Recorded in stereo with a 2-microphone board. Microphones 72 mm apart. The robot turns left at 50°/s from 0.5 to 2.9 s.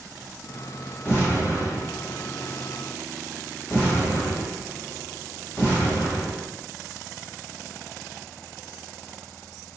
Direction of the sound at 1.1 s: 30° left (ahead or behind).